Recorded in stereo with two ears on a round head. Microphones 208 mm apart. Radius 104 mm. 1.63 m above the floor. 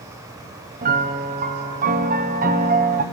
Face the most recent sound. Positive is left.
turn(degrees=-35)  # may be behind; listen again after turning